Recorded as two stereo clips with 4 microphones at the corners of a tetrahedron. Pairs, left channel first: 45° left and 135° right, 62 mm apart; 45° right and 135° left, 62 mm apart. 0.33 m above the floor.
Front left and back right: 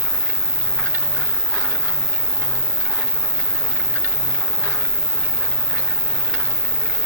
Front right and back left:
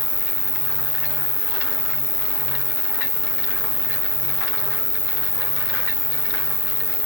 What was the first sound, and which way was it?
An insect, 10° right.